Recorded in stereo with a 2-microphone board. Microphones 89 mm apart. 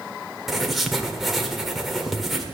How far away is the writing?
About 1.3 m.